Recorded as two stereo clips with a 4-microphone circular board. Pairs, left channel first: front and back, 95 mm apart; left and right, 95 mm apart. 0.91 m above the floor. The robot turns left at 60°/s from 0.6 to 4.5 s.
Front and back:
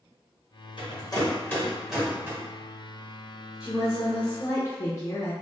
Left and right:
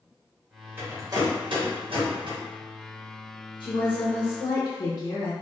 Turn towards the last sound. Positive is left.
turn(degrees=45)